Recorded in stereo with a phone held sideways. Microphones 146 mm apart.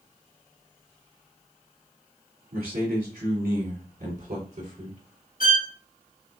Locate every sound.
2.5 s a man speaking: 85° right, 3 m; by 5.0 s 60° right (ahead or behind), 3 m
5.4 s a violin: 75° left (ahead or behind), 1.6 m